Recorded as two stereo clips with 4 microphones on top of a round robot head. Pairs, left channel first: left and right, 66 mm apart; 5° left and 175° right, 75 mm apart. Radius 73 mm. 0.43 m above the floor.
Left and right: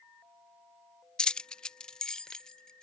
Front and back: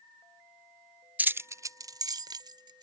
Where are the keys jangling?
150° left; by 2.9 s 170° left.